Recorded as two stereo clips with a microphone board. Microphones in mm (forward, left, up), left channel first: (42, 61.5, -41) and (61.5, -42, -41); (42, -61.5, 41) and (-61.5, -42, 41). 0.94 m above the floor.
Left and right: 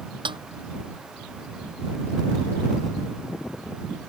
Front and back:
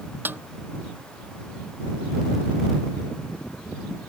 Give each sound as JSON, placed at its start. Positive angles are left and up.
{"t": 0.2, "sound": "a snare drum", "azimuth_deg": -120}